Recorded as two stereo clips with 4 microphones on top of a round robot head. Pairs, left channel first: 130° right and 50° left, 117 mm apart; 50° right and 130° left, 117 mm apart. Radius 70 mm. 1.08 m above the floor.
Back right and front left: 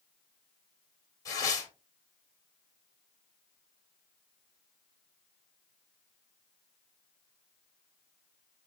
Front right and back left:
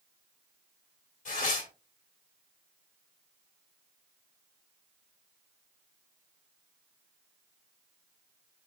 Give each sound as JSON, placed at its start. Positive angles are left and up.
{"t": 1.2, "sound": "tearing paper", "azimuth_deg": -65, "distance_m": 1.9}